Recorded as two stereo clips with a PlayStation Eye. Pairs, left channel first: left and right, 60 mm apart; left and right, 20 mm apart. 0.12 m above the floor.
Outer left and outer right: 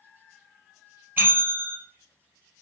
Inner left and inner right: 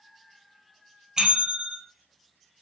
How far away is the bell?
About 1.4 m.